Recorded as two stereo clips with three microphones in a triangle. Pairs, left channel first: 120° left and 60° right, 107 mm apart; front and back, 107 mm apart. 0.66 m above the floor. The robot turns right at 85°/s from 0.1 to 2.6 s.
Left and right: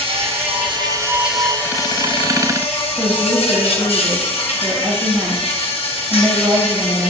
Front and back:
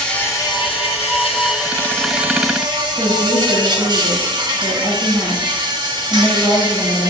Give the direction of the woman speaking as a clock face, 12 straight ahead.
12 o'clock.